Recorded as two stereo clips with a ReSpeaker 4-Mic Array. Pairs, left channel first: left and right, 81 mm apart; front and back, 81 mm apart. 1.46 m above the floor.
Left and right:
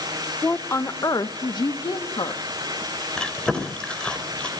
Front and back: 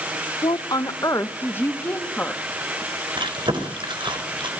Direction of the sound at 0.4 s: 25° left.